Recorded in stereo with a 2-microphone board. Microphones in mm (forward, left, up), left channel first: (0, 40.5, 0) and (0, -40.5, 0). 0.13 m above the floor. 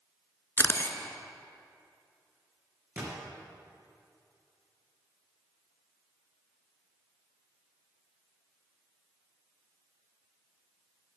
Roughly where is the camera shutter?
Left.